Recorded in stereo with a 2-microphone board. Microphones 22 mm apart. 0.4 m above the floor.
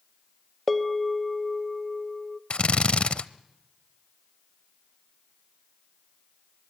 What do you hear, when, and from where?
0.7 s a bell: centre (ahead or behind), 0.7 m
2.5 s a drill: 60° left (ahead or behind), 0.7 m